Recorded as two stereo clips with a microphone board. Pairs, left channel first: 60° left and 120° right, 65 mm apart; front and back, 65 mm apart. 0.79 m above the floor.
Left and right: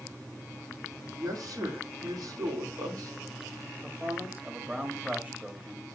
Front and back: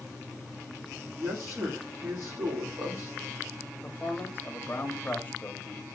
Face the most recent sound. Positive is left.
turn(degrees=-60)